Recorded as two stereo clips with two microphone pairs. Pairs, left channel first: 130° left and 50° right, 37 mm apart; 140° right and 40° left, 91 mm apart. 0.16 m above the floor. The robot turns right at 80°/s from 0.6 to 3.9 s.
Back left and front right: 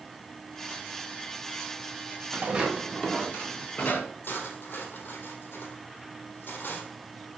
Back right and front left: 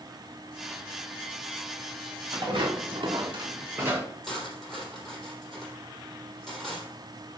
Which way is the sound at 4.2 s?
130° left.